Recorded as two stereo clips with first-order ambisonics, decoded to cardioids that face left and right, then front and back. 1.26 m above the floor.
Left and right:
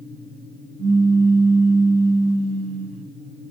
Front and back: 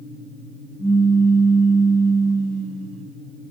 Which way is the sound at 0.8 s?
80° right.